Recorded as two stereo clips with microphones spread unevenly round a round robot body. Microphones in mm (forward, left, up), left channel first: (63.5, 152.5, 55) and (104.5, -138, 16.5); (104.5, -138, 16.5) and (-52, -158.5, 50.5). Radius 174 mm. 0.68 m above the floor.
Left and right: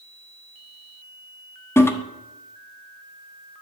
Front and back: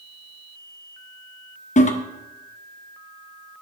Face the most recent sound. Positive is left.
turn(degrees=15)